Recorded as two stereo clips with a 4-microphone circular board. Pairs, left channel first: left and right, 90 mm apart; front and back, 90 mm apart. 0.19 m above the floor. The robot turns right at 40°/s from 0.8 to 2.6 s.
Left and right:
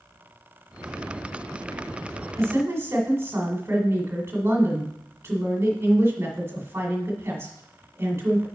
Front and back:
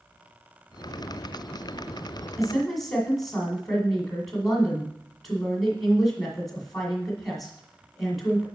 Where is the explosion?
I don't hear an explosion.